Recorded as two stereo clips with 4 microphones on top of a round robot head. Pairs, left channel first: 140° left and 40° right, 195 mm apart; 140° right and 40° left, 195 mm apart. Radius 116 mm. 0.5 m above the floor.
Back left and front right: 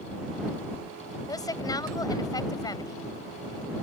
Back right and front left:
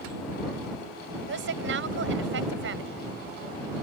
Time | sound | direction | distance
1.3 | a woman speaking | 70° left | ?